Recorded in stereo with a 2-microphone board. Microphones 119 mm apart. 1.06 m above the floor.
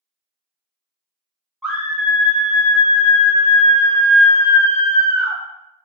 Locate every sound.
1.6 s a scream: centre (ahead or behind), 0.6 m